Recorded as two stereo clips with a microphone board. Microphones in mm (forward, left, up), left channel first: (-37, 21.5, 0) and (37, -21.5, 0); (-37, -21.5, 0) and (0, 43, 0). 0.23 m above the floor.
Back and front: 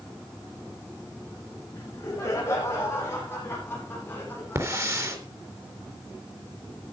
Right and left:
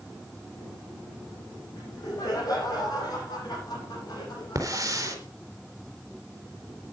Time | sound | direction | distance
1.7 | laughter | 155° right | 8 m
4.5 | a hiss | 20° left | 3.5 m